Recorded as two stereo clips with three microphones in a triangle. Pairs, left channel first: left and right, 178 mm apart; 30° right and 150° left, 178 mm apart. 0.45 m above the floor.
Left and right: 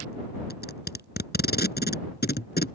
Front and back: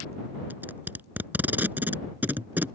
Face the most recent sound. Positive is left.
turn(degrees=70)